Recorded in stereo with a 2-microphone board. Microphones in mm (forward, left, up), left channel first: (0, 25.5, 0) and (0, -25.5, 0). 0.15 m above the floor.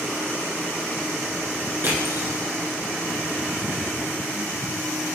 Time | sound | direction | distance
1.8 | crushing | 50° right (ahead or behind) | 1.8 m